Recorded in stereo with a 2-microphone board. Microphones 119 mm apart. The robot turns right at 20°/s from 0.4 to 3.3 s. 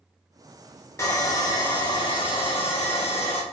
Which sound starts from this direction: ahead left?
Sawing, at 1.0 s.